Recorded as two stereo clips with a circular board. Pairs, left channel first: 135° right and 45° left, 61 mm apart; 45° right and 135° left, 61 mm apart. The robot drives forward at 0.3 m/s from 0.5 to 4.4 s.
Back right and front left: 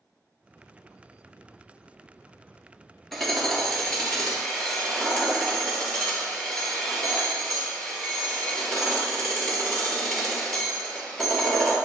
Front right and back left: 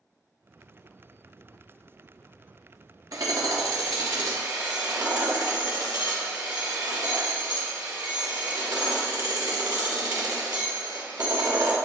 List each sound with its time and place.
3.1 s hammering: 135° left, 1.4 m; by 11.8 s 145° left, 1.7 m